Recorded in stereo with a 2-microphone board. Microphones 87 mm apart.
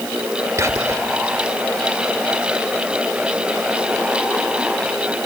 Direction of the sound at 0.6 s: 35° right (ahead or behind).